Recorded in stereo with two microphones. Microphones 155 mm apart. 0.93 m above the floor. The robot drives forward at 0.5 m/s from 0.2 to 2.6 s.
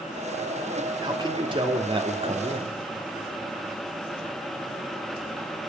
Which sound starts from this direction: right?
A man speaking, at 1.0 s.